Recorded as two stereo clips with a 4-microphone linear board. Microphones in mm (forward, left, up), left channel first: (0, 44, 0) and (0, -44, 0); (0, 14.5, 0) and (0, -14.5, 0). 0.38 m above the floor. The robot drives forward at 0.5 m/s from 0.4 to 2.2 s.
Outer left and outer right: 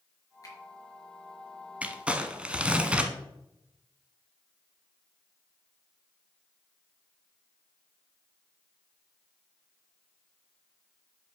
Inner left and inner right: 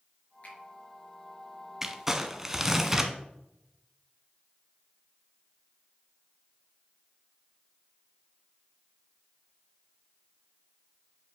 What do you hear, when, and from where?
0.4 s a finger snap: 40° left (ahead or behind), 4.5 m; by 0.6 s 35° left (ahead or behind), 4.5 m
1.8 s crumpling: 15° right (ahead or behind), 0.9 m; by 3.1 s 10° right (ahead or behind), 1.1 m